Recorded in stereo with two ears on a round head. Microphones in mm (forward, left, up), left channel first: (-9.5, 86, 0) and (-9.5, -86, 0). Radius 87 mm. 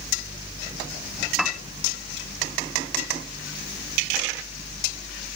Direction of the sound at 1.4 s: Centre (ahead or behind).